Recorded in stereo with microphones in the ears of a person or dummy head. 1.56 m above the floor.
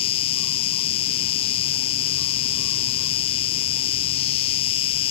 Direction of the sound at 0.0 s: 35° left (ahead or behind).